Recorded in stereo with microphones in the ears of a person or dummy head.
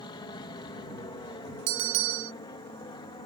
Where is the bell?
65° right (ahead or behind).